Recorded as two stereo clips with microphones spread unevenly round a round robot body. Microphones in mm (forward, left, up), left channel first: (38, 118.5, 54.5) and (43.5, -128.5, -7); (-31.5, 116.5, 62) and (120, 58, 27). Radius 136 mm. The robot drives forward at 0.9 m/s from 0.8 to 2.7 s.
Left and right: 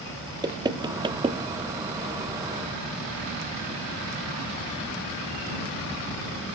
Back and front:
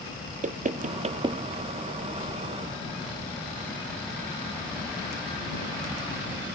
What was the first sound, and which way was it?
Knocking, 25° right.